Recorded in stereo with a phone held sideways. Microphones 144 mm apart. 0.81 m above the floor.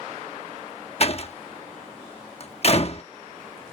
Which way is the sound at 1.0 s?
45° left (ahead or behind).